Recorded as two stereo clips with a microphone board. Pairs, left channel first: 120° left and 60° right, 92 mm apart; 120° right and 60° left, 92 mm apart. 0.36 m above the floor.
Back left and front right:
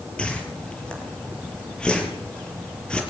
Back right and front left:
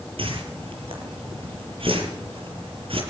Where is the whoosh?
40° left, 5.5 m.